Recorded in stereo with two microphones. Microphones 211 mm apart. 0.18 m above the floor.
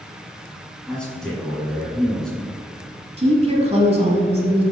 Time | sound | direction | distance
0.9 | a man speaking | 5° left (ahead or behind) | 1.8 m
3.2 | a woman speaking | 30° right (ahead or behind) | 1.1 m